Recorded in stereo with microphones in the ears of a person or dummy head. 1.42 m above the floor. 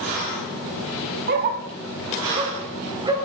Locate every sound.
1.3 s a dog barking: 50° right (ahead or behind), 1.9 m; by 3.1 s 20° right (ahead or behind), 3.5 m